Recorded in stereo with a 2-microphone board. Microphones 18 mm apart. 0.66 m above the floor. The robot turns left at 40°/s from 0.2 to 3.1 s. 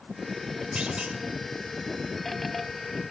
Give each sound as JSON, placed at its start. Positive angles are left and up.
{"t": 0.8, "sound": "a clunk", "side_deg": -75, "distance_m": 2.0}